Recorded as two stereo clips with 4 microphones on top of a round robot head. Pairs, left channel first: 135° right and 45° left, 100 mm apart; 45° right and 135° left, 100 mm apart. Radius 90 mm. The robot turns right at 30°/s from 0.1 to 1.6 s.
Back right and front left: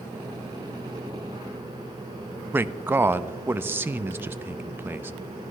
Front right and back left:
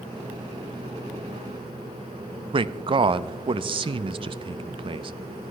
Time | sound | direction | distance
2.5 | a man speaking | 115° left | 0.7 m